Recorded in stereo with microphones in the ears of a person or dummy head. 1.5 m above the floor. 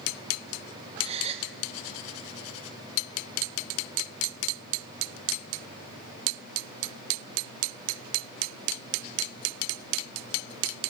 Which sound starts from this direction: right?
A gasp, at 1.0 s.